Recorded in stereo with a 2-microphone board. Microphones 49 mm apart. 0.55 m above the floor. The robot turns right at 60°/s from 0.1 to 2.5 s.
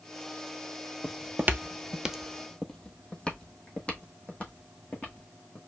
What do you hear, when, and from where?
1.0 s footsteps: 20° right (ahead or behind), 0.6 m; by 5.6 s 35° left (ahead or behind), 2.5 m